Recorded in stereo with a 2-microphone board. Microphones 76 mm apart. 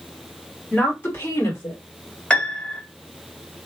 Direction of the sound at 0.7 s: 20° left (ahead or behind).